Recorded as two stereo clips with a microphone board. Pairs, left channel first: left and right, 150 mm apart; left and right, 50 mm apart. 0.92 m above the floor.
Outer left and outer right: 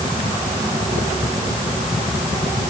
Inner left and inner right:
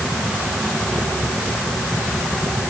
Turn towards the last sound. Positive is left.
No sound to turn to.